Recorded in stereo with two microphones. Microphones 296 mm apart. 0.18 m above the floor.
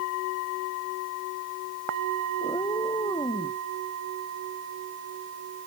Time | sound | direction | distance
2.4 | a cat meowing | 15° left (ahead or behind) | ?